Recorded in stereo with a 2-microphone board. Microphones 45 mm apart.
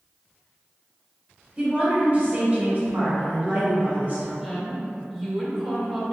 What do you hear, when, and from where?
1.6 s a woman speaking: 30° right (ahead or behind), 1.3 m; by 4.3 s 40° right (ahead or behind), 2 m
4.4 s a woman speaking: centre (ahead or behind), 0.8 m